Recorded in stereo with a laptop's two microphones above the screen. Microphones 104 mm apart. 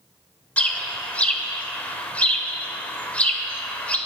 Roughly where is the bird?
Centre.